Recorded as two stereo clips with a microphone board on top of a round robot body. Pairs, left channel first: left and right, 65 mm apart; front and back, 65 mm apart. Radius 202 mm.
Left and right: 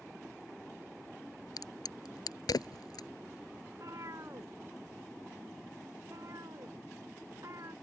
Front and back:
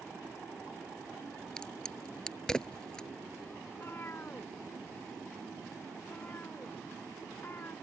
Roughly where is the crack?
Left.